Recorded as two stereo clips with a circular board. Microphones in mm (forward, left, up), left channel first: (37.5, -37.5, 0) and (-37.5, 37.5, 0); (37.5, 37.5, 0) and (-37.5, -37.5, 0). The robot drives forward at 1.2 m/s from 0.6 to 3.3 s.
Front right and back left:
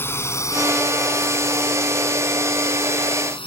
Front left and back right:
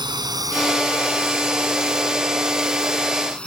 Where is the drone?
105° right; by 3.5 s 30° right.